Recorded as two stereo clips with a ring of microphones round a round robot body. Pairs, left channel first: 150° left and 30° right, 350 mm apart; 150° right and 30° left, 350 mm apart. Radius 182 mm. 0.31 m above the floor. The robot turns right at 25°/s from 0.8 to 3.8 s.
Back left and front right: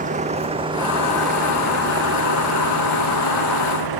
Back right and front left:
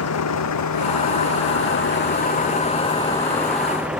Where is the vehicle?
100° right; by 4.0 s 60° right.